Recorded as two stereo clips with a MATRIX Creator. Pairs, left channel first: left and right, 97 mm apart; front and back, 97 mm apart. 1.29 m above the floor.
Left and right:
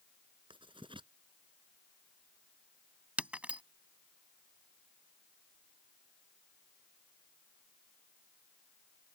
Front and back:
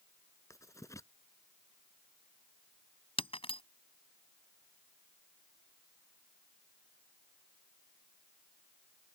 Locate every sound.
0.5 s writing: 60° right
3.2 s breaking glass: 15° right